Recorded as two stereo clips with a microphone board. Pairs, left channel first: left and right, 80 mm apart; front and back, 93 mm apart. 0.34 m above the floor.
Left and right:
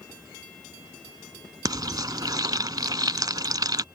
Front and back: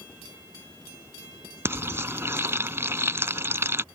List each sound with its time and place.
1.6 s frying: 120° right